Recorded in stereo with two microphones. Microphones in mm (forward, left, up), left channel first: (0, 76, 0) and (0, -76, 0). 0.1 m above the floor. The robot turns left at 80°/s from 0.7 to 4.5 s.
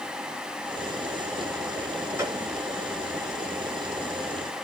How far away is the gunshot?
About 1.9 m.